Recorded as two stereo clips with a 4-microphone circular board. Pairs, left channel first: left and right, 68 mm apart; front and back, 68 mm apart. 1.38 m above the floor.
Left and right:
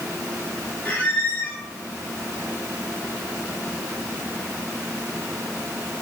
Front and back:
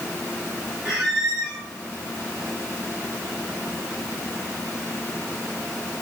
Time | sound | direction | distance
0.8 | a squeak | 105° left | 1.4 m